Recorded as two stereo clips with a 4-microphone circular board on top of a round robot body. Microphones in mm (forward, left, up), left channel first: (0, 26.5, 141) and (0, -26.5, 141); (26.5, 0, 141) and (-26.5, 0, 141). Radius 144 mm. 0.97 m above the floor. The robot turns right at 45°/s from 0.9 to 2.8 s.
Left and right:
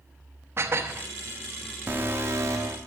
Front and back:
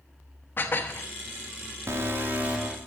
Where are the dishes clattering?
45° right, 1.1 m; by 1.1 s 40° right, 1.1 m.